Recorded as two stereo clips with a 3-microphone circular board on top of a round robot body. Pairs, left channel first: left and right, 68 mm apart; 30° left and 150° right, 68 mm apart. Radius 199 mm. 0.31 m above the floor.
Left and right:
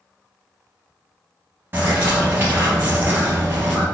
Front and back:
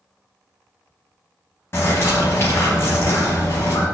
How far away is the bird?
About 0.6 m.